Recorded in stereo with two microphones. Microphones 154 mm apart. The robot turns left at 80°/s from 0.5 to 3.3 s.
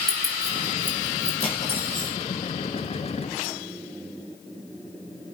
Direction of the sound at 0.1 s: 75° right (ahead or behind).